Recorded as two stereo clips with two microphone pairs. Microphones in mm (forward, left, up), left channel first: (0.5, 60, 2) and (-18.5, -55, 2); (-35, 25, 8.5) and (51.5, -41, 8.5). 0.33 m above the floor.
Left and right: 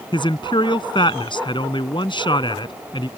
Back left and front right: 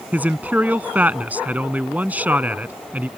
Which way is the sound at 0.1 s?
35° left.